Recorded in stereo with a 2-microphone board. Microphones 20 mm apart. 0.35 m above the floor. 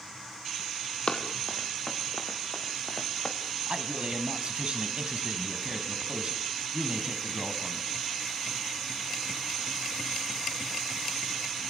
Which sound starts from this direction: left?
Running footsteps, at 1.1 s.